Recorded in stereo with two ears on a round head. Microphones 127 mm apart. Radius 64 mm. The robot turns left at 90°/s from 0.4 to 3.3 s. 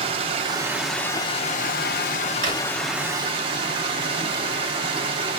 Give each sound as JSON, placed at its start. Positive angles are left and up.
{"t": 0.0, "sound": "running water", "azimuth_deg": -140, "distance_m": 0.7}
{"t": 2.4, "sound": "a drawer", "side_deg": -70, "distance_m": 1.6}